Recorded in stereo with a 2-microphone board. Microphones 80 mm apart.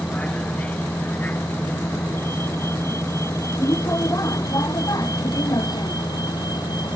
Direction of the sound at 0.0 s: 15° left (ahead or behind).